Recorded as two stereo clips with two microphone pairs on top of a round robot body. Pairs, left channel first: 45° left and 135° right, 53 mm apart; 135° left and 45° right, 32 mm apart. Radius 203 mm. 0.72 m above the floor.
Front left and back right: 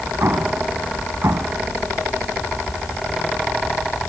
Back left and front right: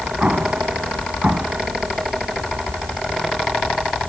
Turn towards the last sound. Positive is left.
turn(degrees=-100)